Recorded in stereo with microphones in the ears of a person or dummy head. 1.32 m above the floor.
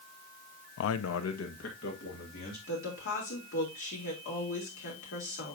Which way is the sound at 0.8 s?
70° left (ahead or behind).